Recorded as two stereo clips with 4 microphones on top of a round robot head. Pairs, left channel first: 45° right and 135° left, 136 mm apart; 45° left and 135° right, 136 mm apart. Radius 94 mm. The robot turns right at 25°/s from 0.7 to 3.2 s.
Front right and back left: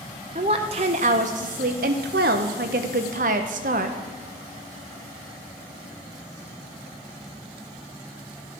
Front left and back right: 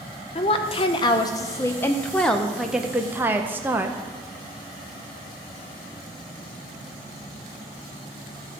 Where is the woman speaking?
90° left, 0.6 m; by 4.0 s 150° left, 0.6 m.